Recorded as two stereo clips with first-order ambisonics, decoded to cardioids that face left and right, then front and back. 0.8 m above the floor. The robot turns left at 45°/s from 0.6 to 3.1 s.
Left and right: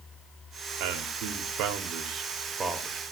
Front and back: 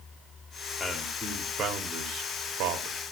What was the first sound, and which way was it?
A man speaking, 80° right.